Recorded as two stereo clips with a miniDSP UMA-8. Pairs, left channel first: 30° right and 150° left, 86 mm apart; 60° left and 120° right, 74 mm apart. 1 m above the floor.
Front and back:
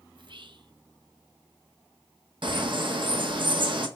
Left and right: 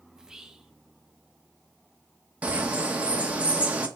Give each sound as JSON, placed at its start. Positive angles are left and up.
{"t": 0.1, "sound": "whispering", "azimuth_deg": 160, "distance_m": 0.6}
{"t": 2.4, "sound": "a bird", "azimuth_deg": 170, "distance_m": 0.9}